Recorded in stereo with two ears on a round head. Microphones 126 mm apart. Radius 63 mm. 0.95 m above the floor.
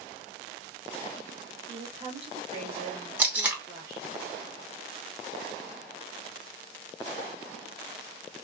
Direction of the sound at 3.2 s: 10° right (ahead or behind).